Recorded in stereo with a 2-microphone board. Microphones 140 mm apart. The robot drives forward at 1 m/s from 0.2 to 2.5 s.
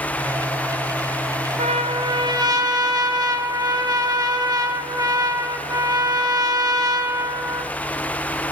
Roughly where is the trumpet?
Right.